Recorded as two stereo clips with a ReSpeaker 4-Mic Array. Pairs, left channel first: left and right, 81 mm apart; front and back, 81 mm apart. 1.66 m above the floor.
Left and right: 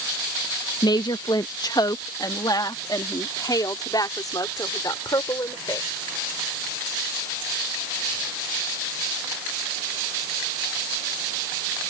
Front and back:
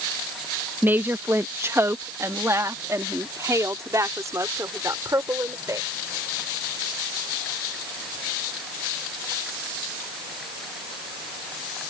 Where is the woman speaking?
115° left; by 5.9 s 130° left.